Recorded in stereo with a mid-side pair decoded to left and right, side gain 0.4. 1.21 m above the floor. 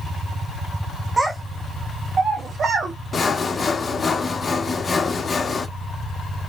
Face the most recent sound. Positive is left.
turn(degrees=40)